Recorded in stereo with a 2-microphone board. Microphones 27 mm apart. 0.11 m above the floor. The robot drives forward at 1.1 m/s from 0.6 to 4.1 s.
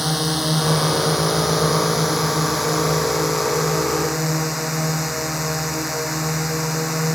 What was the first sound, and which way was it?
A drone, 5° right (ahead or behind).